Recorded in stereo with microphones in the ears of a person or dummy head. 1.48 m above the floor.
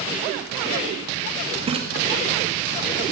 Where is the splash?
30° right (ahead or behind), 2.0 m.